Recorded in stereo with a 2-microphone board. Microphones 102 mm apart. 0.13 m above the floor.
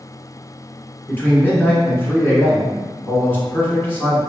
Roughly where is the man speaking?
Centre.